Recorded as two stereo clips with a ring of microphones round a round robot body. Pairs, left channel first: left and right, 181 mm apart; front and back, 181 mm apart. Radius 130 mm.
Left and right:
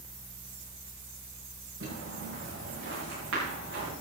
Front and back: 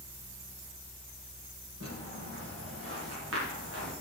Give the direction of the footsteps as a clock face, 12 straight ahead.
4 o'clock.